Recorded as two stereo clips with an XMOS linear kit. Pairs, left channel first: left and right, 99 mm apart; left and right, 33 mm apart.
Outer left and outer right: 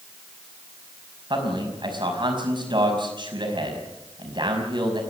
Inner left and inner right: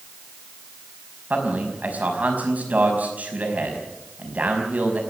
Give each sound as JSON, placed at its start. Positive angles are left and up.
{"t": 1.3, "sound": "a man speaking", "side_deg": -55, "distance_m": 5.0}